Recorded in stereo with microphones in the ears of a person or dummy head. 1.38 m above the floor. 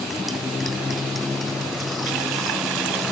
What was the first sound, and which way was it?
A motorcycle, centre (ahead or behind).